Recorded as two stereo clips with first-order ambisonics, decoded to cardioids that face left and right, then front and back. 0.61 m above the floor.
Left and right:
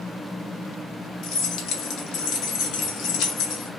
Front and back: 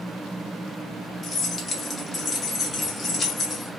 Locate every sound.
1.2 s keys jangling: 65° left, 0.6 m